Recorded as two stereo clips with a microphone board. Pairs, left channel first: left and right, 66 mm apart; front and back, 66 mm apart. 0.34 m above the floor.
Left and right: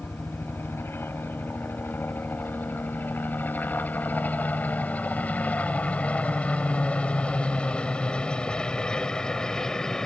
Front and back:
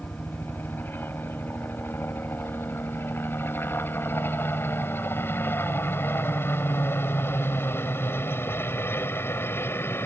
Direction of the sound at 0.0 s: 50° left.